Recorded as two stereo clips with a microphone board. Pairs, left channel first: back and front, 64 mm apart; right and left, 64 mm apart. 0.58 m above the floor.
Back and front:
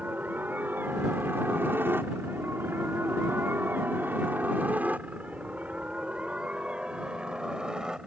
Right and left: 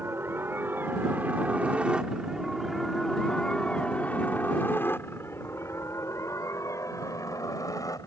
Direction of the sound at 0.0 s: 55° left.